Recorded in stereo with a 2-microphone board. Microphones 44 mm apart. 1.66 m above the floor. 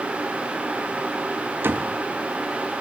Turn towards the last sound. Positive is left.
turn(degrees=-65)  # may be behind; listen again after turning